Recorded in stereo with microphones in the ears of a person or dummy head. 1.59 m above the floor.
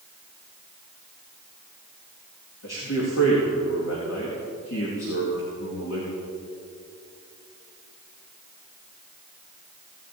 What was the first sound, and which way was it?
A man speaking, 75° left (ahead or behind).